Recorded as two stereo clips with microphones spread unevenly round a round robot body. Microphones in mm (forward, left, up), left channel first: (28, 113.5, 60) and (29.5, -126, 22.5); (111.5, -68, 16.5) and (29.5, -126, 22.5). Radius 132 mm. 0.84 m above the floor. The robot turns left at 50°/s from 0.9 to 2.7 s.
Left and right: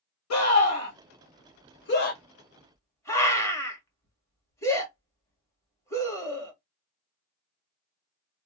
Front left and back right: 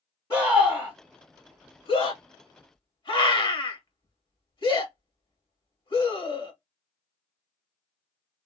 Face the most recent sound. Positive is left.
turn(degrees=10)